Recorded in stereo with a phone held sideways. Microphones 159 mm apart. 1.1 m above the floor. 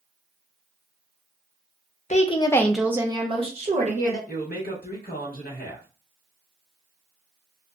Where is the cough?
No cough in this recording.